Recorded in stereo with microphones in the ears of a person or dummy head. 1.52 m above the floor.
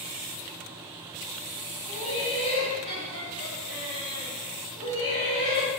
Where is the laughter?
40° left (ahead or behind), 1.5 m.